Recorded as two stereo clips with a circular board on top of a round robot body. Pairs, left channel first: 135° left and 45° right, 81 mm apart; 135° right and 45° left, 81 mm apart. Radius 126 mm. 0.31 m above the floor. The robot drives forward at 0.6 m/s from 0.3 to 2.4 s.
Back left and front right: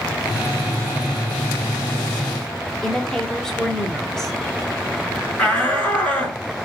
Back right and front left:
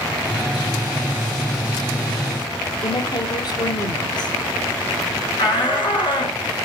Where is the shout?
150° right, 6.5 m.